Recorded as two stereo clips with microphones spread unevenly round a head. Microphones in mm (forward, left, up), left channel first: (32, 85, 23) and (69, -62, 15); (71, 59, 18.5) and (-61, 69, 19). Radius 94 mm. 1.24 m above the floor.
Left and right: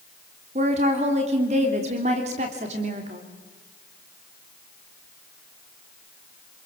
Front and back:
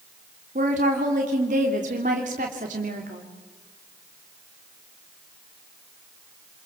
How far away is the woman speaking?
About 3 m.